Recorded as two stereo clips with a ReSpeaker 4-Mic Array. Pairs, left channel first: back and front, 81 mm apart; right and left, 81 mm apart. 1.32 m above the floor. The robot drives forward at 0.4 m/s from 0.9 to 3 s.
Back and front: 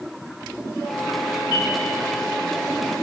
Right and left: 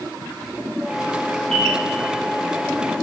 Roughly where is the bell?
Behind.